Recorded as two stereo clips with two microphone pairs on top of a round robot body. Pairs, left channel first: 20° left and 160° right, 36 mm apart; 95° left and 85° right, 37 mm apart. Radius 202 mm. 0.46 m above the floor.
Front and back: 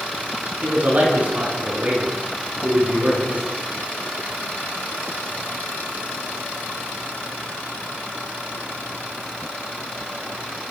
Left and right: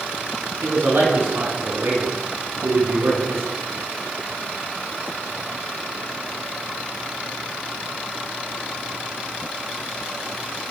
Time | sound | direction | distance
0.6 | a man speaking | 115° right | 8 m